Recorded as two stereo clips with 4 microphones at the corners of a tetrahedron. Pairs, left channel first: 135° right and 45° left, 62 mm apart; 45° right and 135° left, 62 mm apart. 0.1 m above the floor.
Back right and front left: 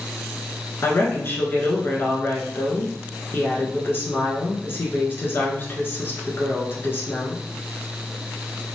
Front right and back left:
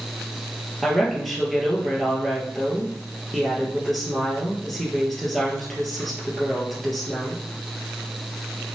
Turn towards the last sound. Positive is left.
turn(degrees=-135)